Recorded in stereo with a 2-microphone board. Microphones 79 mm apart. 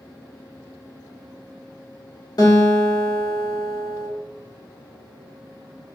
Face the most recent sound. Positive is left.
turn(degrees=55)  # may be behind; listen again after turning